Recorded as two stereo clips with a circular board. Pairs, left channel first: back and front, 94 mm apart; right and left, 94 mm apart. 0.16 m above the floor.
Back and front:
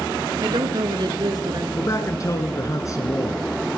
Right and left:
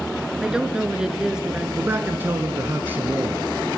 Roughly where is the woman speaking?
Ahead.